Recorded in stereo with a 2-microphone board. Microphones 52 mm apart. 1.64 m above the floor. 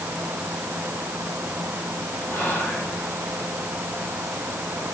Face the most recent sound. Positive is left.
turn(degrees=55)  # may be behind; listen again after turning